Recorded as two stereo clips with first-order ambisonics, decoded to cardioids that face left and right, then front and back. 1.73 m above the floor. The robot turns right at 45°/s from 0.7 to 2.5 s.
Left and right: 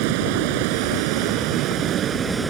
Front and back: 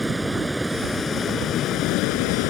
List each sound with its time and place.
0.0 s running water: 95° right; by 2.5 s 15° right